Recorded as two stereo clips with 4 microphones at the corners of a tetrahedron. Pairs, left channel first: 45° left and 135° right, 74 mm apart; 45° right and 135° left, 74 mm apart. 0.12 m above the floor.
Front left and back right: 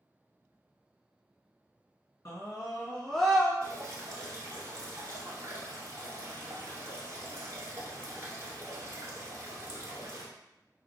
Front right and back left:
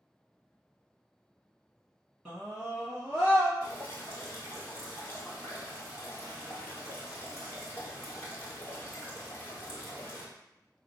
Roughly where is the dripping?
Right.